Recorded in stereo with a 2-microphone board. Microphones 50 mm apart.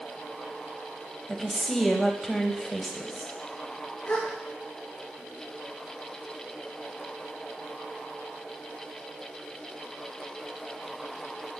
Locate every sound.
1.3 s a woman speaking: centre (ahead or behind), 1.5 m
4.0 s a gasp: 35° left (ahead or behind), 3 m